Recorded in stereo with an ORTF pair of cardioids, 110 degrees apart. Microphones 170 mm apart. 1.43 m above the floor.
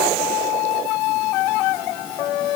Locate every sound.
Only background noise.